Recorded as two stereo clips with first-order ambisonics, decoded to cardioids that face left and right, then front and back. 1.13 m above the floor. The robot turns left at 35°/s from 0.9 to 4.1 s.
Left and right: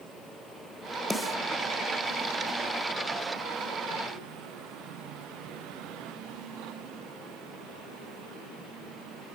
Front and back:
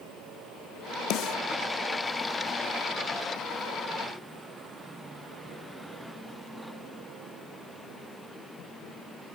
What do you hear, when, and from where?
1.1 s a snare drum: 5° left, 1.2 m; by 1.4 s 5° right, 1.2 m